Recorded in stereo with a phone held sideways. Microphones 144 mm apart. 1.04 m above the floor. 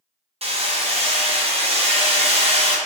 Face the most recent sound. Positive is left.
turn(degrees=-45)  # may be behind; listen again after turning